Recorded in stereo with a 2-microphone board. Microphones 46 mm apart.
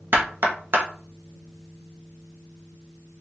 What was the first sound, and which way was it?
Knocking, 50° right (ahead or behind).